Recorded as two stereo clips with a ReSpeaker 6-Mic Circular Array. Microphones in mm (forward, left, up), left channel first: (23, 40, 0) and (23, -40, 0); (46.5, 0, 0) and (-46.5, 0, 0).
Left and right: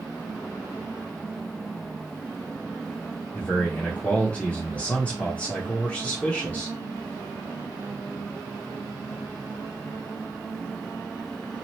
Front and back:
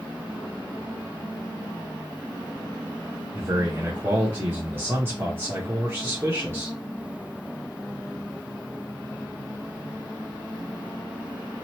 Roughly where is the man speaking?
Behind left.